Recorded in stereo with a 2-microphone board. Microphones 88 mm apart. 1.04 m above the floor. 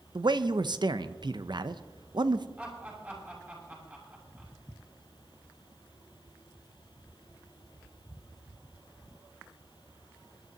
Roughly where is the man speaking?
Right.